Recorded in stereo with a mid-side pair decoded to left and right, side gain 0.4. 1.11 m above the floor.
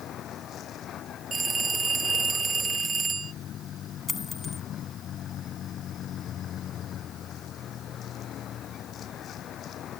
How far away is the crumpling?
I don't hear crumpling.